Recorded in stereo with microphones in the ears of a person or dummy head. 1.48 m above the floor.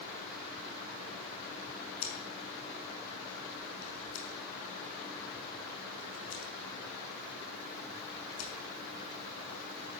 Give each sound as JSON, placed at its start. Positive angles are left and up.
{"t": 2.0, "sound": "scissors", "side_deg": 75, "distance_m": 5.0}